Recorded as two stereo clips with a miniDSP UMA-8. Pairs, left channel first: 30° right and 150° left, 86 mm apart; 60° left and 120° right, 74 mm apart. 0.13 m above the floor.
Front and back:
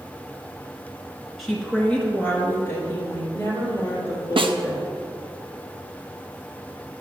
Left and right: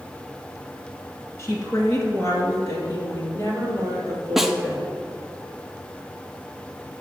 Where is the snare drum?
155° left, 0.5 m.